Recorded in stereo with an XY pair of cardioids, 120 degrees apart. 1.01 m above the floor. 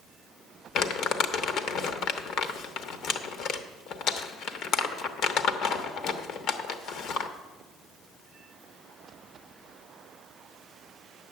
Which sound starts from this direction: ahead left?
Crumpling, at 0.8 s.